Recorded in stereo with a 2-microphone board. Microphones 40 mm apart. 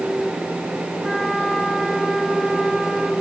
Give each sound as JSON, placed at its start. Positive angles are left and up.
{"t": 1.0, "sound": "a flute", "side_deg": 0, "distance_m": 3.5}